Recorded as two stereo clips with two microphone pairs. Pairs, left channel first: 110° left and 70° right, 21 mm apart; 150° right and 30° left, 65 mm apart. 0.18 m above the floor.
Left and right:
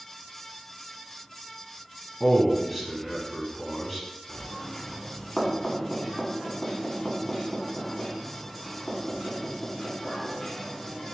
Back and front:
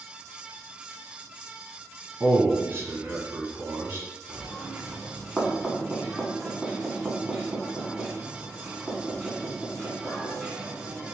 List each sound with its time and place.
2.2 s a man speaking: 25° left, 1.1 m
4.3 s knocking: 120° left, 1.1 m